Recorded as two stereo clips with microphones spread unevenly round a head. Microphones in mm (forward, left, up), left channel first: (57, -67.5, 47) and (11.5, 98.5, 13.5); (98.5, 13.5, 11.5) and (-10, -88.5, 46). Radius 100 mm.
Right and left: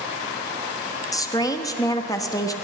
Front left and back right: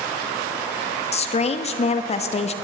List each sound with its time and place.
1.1 s a woman speaking: 5° right, 1.2 m